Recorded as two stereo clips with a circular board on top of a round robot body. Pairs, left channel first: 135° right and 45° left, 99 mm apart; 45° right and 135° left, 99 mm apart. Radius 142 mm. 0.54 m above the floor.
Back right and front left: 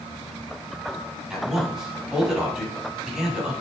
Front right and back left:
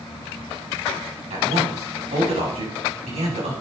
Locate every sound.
1.3 s a man speaking: 130° left, 6 m